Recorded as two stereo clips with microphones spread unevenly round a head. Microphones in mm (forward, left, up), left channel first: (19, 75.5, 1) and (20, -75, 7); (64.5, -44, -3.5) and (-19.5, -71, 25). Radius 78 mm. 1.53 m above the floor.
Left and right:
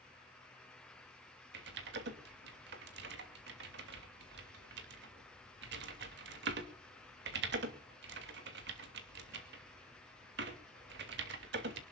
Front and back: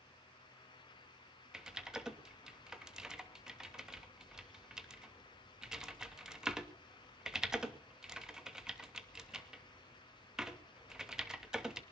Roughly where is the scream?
No scream in this recording.